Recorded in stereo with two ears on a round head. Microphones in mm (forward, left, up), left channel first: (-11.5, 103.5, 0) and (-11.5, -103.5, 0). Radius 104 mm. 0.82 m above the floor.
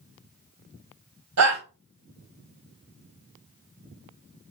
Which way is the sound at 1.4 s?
70° right (ahead or behind).